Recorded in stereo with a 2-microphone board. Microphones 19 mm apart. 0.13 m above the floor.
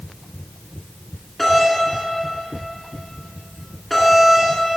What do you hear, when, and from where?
1.4 s a doorbell: 5° left (ahead or behind), 2 m